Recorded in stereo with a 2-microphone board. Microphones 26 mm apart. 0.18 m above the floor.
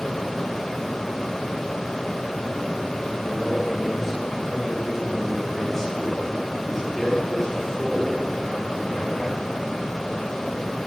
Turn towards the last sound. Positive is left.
turn(degrees=25)  # may be behind; listen again after turning